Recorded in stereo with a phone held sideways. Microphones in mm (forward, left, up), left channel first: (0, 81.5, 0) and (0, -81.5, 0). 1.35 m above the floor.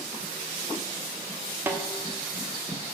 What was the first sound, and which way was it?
A snare drum, 10° right (ahead or behind).